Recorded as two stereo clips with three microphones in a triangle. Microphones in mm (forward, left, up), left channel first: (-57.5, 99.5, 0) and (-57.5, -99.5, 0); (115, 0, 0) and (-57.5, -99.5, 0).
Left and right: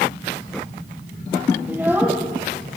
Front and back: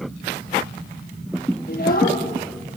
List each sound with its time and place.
1.7 s a child speaking: 10° right, 6 m